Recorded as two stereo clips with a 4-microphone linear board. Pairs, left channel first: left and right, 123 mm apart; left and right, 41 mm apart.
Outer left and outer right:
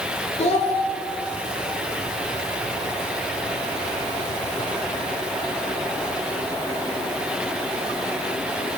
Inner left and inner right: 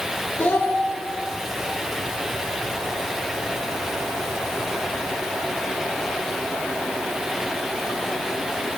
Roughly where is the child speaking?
Left.